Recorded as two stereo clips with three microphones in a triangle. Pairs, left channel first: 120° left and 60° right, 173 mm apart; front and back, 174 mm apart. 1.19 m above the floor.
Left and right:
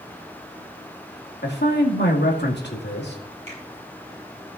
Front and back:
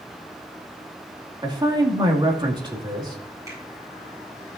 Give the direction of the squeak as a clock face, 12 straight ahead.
No squeak in this recording.